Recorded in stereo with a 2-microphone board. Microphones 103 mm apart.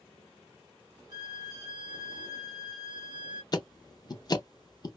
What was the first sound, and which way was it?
A violin, 40° right (ahead or behind).